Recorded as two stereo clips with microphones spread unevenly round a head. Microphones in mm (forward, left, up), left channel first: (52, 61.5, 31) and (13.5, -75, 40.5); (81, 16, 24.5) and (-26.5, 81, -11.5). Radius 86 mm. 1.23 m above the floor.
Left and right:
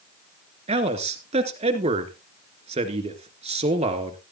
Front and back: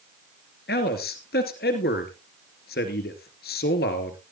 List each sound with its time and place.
0.7 s a man speaking: 65° right, 2.5 m